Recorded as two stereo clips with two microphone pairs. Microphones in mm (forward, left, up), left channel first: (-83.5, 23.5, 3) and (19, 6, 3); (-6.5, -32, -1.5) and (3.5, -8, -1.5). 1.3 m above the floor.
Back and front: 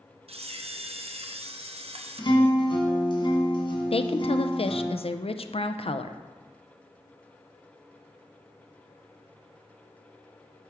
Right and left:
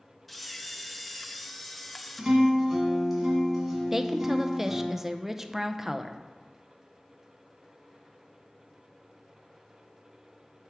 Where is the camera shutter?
25° right, 0.6 m.